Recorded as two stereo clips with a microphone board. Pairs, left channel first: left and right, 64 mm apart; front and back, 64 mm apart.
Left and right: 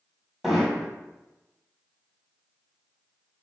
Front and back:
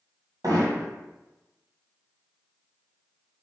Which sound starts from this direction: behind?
Hammering, at 0.4 s.